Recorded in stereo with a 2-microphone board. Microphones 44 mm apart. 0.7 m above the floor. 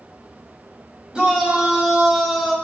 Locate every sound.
1.1 s a shout: 25° right (ahead or behind), 5 m; by 2.5 s 5° right (ahead or behind), 4 m